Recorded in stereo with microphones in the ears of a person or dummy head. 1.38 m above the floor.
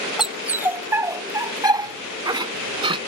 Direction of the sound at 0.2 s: Centre (ahead or behind).